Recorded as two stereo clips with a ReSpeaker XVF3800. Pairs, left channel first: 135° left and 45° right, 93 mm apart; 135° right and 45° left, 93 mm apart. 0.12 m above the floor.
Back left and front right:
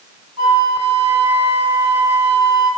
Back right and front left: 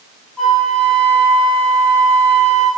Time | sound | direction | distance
0.4 | a flute | 50° right | 0.7 m